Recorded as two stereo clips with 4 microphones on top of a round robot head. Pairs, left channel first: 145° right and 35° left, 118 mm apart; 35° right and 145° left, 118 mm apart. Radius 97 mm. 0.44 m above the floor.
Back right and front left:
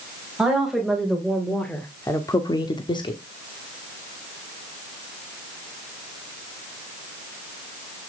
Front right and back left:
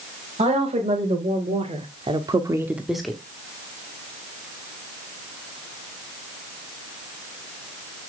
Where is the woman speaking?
120° left, 3 m; by 3.2 s 110° right, 1.5 m.